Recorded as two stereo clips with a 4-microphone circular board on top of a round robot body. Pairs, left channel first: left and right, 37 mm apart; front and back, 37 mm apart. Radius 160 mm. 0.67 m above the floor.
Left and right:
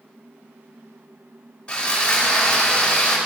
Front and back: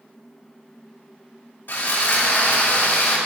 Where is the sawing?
25° left, 2.5 m.